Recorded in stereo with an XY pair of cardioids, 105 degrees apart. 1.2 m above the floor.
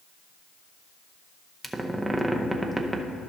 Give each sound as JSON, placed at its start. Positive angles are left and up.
{"t": 1.6, "sound": "a squeak", "azimuth_deg": -10, "distance_m": 0.7}